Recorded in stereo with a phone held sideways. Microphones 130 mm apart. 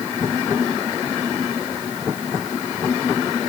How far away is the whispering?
I don't hear whispering.